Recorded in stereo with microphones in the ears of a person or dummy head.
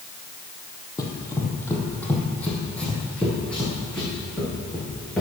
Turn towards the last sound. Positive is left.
turn(degrees=5)  # may be behind; listen again after turning